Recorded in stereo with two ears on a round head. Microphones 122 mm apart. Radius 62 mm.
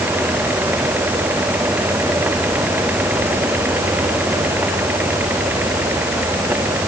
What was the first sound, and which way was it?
Only background noise.